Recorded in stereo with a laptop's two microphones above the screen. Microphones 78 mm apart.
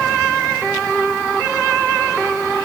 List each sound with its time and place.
Only background noise.